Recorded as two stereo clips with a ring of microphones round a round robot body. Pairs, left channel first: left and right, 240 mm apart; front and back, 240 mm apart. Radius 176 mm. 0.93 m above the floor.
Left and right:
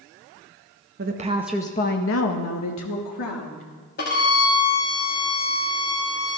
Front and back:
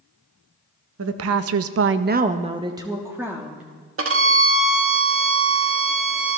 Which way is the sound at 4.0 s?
150° left.